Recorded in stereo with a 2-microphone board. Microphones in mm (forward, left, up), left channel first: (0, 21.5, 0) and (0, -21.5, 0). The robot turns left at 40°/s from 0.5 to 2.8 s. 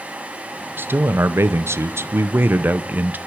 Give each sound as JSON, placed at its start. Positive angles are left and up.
{"t": 0.8, "sound": "a man speaking", "azimuth_deg": -55, "distance_m": 0.7}